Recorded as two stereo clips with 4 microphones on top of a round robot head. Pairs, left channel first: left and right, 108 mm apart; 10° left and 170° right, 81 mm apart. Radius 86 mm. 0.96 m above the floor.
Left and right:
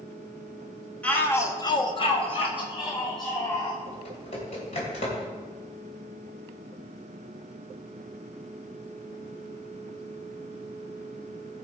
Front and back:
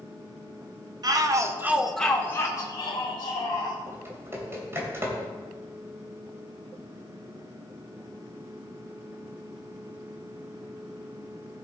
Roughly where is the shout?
Behind.